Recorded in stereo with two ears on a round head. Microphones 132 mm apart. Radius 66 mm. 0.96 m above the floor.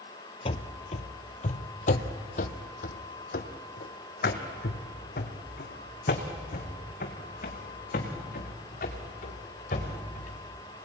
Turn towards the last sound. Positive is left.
turn(degrees=60)  # may be behind; listen again after turning